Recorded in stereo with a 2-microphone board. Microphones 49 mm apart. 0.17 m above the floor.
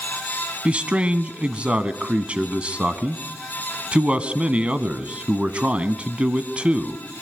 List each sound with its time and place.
0.7 s a man speaking: 25° right (ahead or behind), 1.3 m